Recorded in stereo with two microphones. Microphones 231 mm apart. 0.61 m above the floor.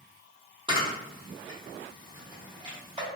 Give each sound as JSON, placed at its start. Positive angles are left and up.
{"t": 0.7, "sound": "a camera shutter", "side_deg": -20, "distance_m": 1.1}